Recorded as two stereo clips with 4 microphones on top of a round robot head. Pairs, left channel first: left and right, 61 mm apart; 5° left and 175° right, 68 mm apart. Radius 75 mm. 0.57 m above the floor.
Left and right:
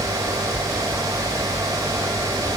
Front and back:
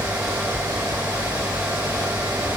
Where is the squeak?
I don't hear a squeak.